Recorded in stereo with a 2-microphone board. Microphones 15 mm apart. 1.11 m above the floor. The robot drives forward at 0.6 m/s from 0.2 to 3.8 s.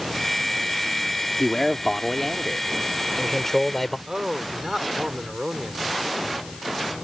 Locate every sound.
1.4 s a man speaking: 30° left (ahead or behind); by 4.0 s 15° left (ahead or behind)
4.1 s a man speaking: 40° right (ahead or behind)